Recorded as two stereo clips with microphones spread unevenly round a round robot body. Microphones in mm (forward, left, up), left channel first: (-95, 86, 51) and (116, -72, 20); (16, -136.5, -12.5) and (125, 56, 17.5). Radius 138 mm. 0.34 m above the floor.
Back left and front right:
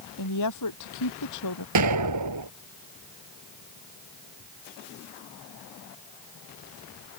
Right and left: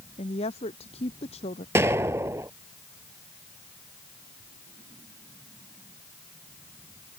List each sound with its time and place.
0.2 s a woman speaking: 170° left
1.8 s an explosion: 15° right